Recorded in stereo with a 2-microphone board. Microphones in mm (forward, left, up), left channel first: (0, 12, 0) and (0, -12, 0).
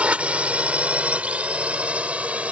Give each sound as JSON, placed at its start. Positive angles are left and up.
{"t": 0.0, "sound": "a drone", "side_deg": -60}